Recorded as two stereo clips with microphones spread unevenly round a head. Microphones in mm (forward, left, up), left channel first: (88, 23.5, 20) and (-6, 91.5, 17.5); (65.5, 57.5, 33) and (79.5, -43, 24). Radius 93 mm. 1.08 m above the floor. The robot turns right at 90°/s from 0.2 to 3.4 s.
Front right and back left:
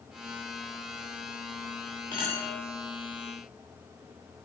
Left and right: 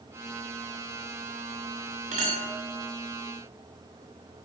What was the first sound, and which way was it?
A clink, 105° right.